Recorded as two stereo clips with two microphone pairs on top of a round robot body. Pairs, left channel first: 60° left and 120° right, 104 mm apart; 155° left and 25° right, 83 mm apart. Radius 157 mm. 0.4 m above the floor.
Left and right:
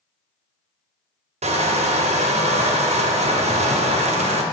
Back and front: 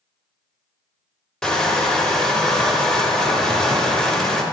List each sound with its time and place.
1.4 s crushing: 125° right, 0.8 m